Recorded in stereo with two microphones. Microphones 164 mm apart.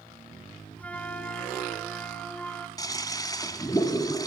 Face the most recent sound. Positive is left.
turn(degrees=25)  # may be behind; listen again after turning